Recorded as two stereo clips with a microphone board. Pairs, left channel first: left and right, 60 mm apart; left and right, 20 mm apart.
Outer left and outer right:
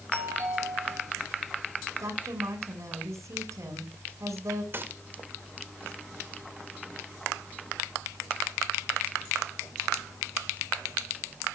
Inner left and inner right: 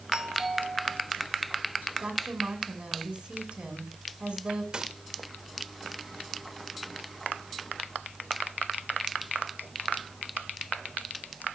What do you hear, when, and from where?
0.1 s a doorbell: 50° right (ahead or behind), 9.5 m
2.0 s a woman speaking: 65° right (ahead or behind), 8 m
4.7 s a gunshot: 40° right (ahead or behind), 1.7 m